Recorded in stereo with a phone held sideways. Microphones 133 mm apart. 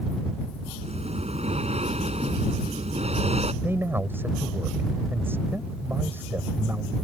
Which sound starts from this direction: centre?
A man speaking, at 3.6 s.